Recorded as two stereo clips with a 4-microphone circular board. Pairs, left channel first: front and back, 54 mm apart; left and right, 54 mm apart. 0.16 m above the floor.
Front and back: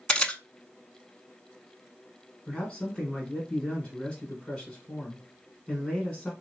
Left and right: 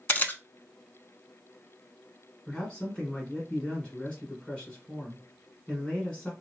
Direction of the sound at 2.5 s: 40° left.